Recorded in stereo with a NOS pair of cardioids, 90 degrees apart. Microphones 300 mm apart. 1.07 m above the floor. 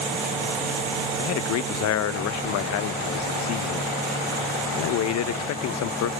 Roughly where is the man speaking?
Ahead left.